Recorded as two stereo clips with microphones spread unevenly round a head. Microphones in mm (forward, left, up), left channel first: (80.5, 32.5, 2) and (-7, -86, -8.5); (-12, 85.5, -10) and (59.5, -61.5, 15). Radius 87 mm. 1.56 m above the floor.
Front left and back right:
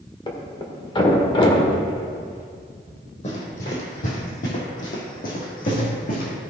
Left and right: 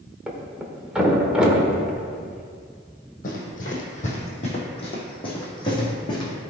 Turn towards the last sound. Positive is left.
turn(degrees=50)